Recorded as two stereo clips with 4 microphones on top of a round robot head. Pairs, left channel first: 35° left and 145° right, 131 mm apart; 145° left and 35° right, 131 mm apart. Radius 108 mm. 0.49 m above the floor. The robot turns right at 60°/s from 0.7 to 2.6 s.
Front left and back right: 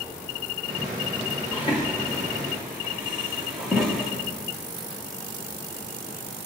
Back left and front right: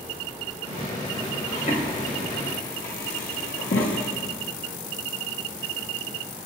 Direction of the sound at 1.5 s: 95° left.